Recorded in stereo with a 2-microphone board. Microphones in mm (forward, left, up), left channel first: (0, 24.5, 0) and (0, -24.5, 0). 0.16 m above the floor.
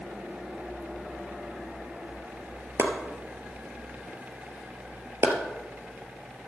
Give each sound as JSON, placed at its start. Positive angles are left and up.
{"t": 2.8, "sound": "chopping", "side_deg": -65, "distance_m": 2.0}